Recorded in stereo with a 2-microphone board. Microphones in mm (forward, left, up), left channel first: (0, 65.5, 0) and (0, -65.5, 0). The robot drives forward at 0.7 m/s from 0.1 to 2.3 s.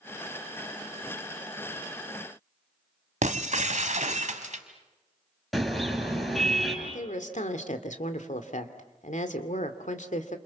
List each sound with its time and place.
3.2 s breaking glass: 70° right (ahead or behind), 1.6 m
5.5 s a car horn: centre (ahead or behind), 5 m
6.8 s a woman speaking: 70° left (ahead or behind), 2.5 m